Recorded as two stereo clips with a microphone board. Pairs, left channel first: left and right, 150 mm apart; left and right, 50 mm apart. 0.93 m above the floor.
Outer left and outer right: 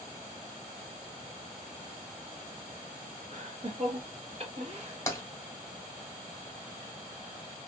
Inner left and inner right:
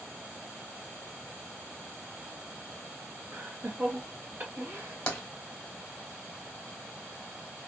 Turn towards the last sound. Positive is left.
turn(degrees=20)  # may be behind; listen again after turning